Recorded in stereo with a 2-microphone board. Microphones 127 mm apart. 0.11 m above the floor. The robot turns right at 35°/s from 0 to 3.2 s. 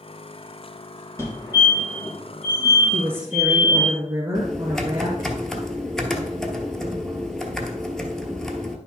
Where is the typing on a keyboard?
5° left (ahead or behind), 0.9 m.